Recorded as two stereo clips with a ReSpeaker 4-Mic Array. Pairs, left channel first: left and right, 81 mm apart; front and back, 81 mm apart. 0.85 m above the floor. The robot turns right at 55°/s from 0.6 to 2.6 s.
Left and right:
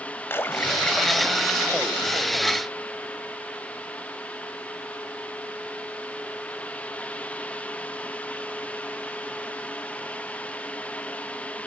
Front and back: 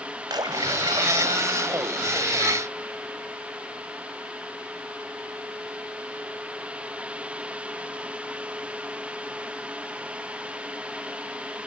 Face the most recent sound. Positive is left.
turn(degrees=-100)